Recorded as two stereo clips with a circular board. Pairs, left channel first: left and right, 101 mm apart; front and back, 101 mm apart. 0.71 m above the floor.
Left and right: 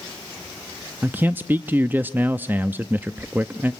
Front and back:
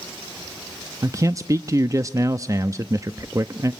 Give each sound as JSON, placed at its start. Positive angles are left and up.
{"t": 1.0, "sound": "a man speaking", "azimuth_deg": -150, "distance_m": 0.6}